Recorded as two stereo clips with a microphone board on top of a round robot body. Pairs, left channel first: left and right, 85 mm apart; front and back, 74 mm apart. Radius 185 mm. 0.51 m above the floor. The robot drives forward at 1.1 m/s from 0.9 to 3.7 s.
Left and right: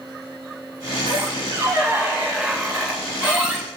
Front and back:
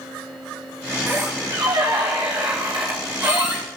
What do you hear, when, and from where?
1.1 s a squeak: 115° right, 0.7 m; by 3.6 s 170° right, 3 m